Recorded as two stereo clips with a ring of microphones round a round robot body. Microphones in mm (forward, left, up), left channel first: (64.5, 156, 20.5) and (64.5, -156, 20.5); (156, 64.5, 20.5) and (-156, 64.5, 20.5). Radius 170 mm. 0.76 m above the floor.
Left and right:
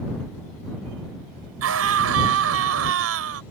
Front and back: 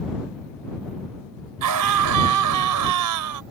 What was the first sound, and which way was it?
A scream, 140° right.